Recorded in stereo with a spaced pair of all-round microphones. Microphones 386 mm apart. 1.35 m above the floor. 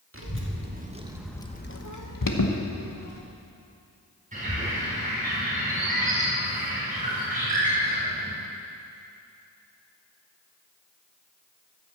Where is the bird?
20° right (ahead or behind), 4 m.